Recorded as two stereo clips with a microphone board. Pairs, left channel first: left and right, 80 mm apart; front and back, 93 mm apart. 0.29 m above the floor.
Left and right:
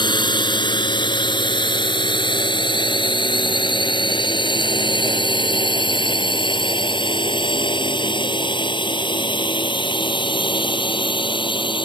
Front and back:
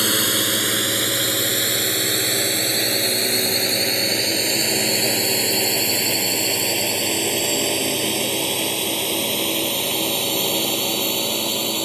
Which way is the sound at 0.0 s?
90° left.